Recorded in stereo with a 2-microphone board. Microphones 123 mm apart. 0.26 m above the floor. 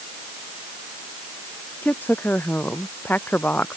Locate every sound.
1.8 s a woman speaking: 15° left (ahead or behind)